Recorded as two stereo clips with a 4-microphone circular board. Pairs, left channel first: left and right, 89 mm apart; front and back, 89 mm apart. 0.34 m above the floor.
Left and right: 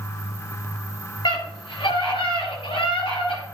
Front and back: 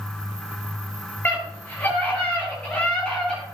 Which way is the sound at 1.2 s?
70° left.